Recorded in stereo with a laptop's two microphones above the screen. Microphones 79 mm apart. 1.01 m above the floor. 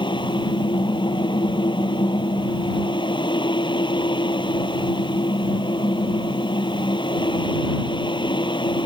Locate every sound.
0.0 s a fan: 80° left